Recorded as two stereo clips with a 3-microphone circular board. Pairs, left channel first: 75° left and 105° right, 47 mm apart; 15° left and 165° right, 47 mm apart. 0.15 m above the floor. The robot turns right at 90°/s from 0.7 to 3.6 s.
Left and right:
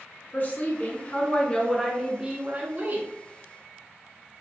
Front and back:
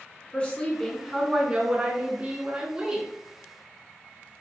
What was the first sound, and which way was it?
A woman speaking, 65° left.